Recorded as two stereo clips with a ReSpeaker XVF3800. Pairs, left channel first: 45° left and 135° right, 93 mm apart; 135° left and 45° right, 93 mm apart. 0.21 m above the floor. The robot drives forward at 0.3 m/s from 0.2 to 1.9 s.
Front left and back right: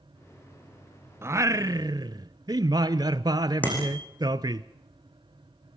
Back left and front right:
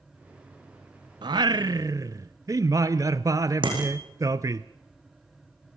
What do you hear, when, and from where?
1.2 s singing: 75° right, 0.6 m; by 4.6 s 95° right, 0.6 m
3.6 s a bicycle bell: 25° right, 8 m